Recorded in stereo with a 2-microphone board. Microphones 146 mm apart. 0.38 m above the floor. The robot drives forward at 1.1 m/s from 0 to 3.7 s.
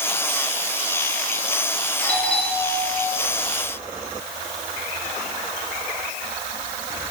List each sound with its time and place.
2.0 s a doorbell: 5° left (ahead or behind), 7.5 m